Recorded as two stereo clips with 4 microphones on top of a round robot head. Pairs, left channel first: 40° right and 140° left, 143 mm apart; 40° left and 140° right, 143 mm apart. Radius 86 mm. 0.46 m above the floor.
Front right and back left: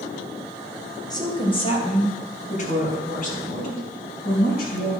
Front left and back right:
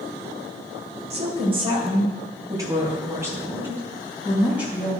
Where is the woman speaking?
100° right, 2.5 m; by 4.9 s 55° right, 5 m.